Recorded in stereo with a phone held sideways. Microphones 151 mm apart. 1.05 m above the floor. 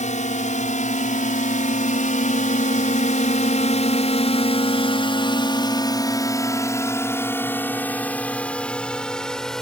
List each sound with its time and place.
0.0 s a drone: 55° left (ahead or behind); by 9.6 s 5° left (ahead or behind)